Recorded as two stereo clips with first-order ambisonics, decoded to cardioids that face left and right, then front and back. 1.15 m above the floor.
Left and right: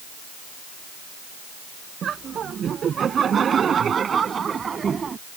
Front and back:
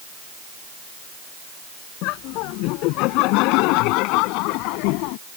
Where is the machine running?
No machine running in this recording.